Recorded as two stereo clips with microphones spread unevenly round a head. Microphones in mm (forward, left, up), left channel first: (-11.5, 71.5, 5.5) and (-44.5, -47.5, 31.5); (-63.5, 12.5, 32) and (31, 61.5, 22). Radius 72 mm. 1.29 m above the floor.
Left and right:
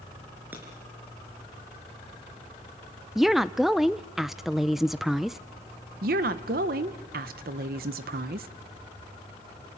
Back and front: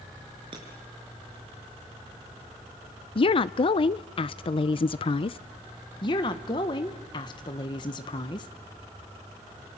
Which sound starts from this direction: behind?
A woman speaking, at 3.1 s.